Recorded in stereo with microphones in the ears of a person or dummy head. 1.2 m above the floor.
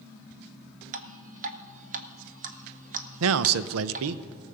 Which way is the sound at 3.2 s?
80° right.